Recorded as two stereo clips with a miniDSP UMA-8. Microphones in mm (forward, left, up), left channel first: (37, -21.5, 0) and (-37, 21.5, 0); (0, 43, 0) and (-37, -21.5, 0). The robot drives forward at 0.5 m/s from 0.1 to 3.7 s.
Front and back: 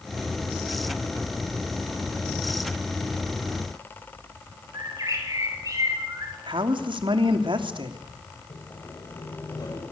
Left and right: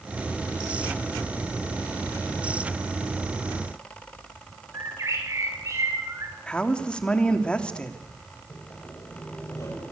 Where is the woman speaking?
135° left, 3 m.